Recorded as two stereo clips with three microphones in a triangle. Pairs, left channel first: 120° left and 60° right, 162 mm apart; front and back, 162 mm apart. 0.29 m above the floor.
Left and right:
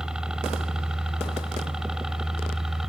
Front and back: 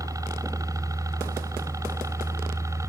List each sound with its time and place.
0.0 s a helicopter: 140° right